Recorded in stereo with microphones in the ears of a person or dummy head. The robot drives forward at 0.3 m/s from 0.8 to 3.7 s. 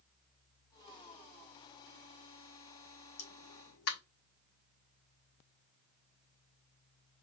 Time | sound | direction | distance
3.2 | a pop | 65° left (ahead or behind) | 1.5 m